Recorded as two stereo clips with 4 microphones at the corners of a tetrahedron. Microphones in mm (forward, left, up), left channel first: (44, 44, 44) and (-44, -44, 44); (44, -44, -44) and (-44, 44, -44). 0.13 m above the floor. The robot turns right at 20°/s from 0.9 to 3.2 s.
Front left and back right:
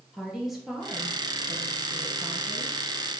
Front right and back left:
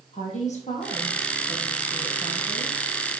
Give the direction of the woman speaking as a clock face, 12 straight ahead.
2 o'clock.